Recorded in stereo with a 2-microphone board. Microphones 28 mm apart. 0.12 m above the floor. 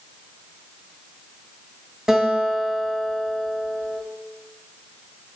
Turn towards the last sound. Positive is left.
turn(degrees=-20)  # may be behind; listen again after turning